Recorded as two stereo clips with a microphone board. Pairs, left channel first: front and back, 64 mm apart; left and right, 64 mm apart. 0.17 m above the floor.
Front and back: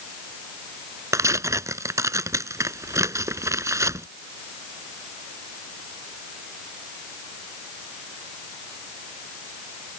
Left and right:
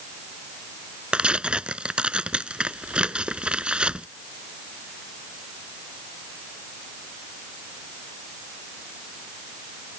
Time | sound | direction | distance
1.1 | tearing paper | 160° right | ?